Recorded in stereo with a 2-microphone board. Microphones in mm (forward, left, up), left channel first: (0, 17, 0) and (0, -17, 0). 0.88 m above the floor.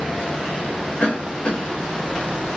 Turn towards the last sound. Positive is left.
turn(degrees=60)  # may be behind; listen again after turning